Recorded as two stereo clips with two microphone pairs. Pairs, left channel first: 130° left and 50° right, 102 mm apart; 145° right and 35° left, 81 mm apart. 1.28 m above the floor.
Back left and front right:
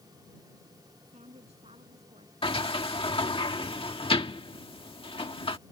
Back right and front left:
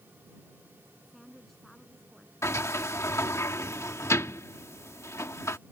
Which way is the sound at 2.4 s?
160° left.